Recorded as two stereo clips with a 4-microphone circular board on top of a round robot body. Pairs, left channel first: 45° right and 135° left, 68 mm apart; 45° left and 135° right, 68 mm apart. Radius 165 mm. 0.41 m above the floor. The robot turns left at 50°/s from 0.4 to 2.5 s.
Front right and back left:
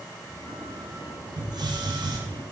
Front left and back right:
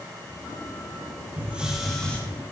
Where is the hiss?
160° left, 1.5 m; by 2.2 s 120° left, 1.5 m.